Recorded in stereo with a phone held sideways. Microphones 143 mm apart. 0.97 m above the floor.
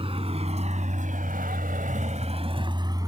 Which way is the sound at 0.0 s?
40° right (ahead or behind).